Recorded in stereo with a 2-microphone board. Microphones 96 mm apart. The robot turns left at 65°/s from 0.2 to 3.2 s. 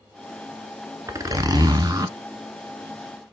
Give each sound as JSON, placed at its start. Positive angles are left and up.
{"t": 1.1, "sound": "a zipper", "azimuth_deg": -55, "distance_m": 0.6}